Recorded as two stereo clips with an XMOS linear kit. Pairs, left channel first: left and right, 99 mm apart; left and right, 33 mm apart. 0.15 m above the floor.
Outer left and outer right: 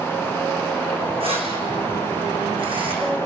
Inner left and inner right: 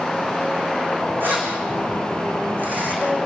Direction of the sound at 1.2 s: 70° right (ahead or behind).